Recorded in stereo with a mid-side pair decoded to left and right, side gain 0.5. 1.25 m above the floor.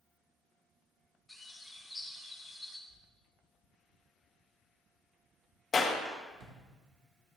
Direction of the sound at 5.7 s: 35° left.